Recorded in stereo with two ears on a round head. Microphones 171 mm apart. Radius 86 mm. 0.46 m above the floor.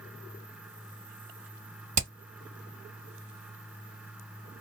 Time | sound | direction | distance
2.0 | hammering | 40° right (ahead or behind) | 1.7 m